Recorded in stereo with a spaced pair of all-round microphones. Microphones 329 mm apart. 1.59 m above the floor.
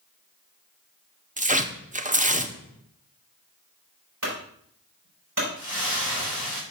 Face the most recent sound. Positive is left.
turn(degrees=-55)  # may be behind; listen again after turning